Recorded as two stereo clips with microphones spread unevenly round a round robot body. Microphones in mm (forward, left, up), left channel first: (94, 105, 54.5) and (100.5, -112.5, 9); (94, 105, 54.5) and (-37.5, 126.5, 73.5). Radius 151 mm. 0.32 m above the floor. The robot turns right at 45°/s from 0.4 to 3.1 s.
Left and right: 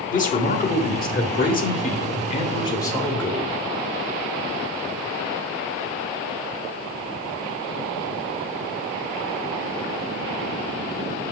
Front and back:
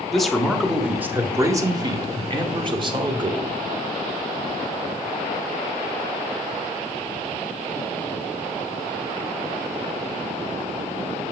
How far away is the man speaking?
About 1.1 m.